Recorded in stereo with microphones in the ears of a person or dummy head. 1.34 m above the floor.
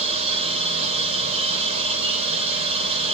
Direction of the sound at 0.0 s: 30° right (ahead or behind).